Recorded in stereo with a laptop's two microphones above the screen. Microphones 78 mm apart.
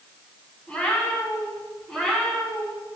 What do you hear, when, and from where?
0.7 s a cat meowing: 15° left (ahead or behind), 4.5 m; by 2.8 s 5° left (ahead or behind), 5.5 m